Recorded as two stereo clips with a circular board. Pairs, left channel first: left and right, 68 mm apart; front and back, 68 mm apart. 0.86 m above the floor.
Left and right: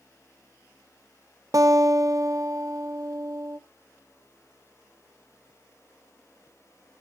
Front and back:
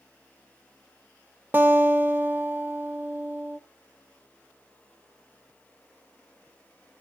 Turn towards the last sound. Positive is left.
turn(degrees=-120)